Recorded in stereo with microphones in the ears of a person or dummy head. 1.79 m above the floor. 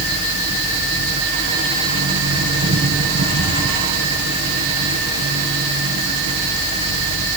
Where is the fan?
70° right (ahead or behind), 2 m.